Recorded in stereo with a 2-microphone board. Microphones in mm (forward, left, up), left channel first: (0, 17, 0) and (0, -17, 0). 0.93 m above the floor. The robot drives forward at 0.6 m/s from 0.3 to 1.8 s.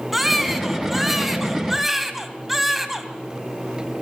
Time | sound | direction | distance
0.1 | a baby crying | 5° right (ahead or behind) | 3.5 m